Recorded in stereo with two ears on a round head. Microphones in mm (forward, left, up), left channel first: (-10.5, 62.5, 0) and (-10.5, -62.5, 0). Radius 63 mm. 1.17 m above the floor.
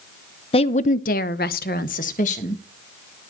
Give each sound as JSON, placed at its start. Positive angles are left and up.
{"t": 0.5, "sound": "a woman speaking", "side_deg": 40, "distance_m": 0.8}